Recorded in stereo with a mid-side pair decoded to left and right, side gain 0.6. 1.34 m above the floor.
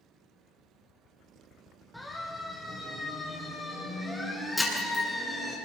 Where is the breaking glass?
5° left, 8.5 m.